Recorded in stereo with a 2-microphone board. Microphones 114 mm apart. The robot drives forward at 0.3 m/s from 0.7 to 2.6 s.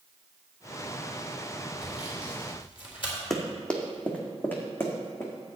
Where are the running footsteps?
Centre (ahead or behind), 1.5 m; by 5.3 s 25° left (ahead or behind), 2.5 m.